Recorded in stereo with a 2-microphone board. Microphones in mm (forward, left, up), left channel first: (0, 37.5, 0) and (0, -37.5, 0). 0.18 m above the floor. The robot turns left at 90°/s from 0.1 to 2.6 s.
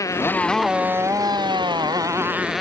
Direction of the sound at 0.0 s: 45° left.